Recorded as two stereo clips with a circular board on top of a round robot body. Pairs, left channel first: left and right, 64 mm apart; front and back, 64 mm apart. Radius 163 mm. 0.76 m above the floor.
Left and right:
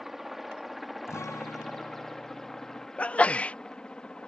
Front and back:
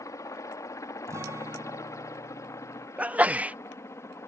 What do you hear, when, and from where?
0.0 s a helicopter: 5° right; by 4.3 s 20° left
1.1 s a guitar: 135° left
3.0 s a sneeze: 135° left